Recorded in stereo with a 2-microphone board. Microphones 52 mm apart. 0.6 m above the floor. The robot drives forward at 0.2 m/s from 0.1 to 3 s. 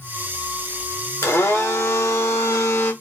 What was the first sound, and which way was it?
A blender, 70° left (ahead or behind).